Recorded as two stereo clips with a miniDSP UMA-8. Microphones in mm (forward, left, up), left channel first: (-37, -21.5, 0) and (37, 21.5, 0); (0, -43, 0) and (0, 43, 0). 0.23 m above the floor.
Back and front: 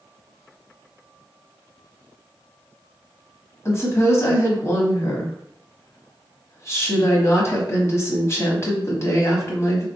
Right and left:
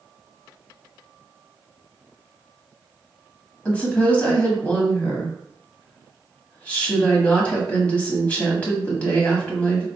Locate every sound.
3.6 s a woman speaking: 150° right, 1.1 m